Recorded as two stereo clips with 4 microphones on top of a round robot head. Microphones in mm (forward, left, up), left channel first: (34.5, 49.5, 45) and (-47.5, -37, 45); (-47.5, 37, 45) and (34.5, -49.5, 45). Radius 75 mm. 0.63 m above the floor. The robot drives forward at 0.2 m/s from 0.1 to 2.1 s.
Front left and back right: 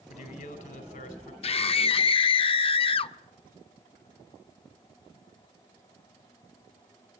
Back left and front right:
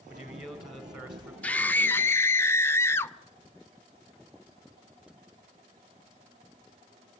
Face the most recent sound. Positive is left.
turn(degrees=70)